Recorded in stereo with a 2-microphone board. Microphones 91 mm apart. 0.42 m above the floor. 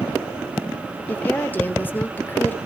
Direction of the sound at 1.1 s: 20° left (ahead or behind).